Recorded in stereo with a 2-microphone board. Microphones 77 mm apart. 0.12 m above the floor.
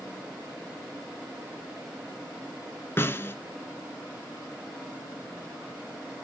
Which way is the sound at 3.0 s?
30° left (ahead or behind).